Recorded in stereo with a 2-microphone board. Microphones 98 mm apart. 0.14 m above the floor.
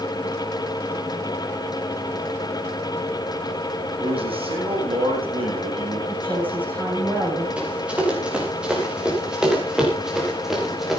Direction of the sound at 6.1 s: 15° right (ahead or behind).